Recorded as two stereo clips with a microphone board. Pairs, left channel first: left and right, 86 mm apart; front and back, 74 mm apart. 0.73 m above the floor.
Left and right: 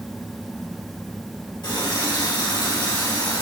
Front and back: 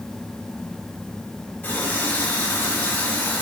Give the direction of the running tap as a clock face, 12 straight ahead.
10 o'clock.